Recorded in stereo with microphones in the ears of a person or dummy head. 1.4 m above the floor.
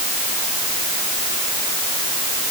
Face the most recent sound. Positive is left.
No sound to turn to.